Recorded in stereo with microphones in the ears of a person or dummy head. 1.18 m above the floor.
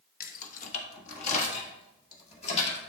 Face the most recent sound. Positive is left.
turn(degrees=35)  # may be behind; listen again after turning